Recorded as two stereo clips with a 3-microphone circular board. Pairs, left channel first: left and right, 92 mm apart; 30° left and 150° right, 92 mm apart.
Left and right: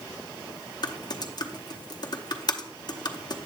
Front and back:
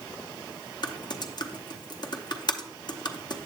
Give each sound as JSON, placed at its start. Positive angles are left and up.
{"t": 0.8, "sound": "typing on a keyboard", "azimuth_deg": 60, "distance_m": 0.7}